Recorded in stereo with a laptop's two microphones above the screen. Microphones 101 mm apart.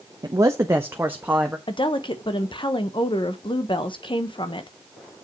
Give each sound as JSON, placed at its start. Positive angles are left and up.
{"t": 0.2, "sound": "a man speaking", "side_deg": -40, "distance_m": 0.6}
{"t": 1.7, "sound": "a woman speaking", "side_deg": 55, "distance_m": 1.0}